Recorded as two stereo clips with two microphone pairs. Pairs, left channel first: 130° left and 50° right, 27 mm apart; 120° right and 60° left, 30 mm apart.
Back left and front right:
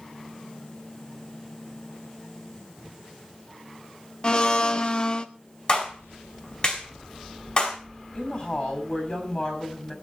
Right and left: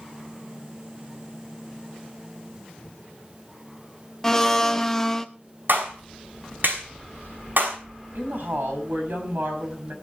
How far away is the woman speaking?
About 6 m.